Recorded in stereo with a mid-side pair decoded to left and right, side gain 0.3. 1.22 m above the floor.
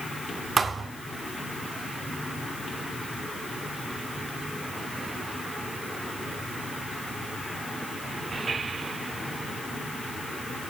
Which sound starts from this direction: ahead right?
A thud, at 0.6 s.